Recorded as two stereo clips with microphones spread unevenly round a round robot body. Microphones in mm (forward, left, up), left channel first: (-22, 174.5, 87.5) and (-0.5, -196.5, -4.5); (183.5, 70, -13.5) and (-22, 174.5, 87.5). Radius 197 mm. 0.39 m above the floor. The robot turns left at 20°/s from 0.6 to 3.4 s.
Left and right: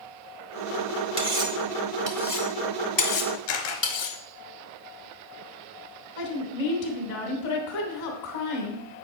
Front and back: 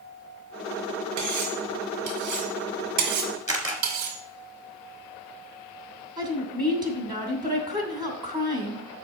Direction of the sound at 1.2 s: 160° right.